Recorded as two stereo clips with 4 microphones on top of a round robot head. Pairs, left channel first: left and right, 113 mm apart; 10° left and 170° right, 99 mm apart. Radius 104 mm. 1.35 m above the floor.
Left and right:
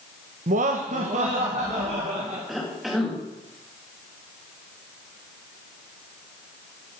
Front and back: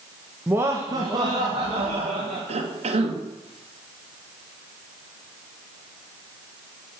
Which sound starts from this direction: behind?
A cough, at 2.5 s.